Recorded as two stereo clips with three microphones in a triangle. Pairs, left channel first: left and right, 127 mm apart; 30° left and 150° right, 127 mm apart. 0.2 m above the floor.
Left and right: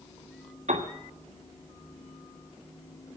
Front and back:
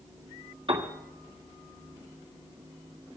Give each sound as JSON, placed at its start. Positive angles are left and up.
{"t": 0.7, "sound": "a piano", "azimuth_deg": -110, "distance_m": 2.5}